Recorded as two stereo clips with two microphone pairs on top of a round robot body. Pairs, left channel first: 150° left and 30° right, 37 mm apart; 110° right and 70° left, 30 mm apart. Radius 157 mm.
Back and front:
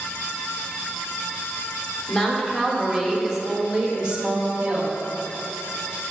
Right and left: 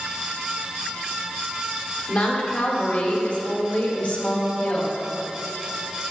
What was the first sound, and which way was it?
A woman speaking, 135° right.